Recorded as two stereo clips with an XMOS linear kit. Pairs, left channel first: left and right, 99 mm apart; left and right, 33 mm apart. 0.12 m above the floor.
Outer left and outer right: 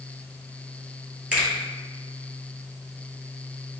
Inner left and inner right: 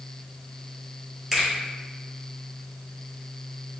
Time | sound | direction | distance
1.3 | a finger snap | 10° right (ahead or behind) | 1.9 m